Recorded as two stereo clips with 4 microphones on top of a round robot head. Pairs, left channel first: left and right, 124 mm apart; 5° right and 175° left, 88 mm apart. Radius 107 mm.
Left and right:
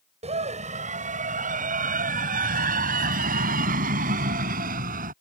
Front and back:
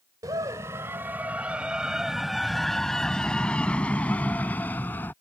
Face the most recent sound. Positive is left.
turn(degrees=-80)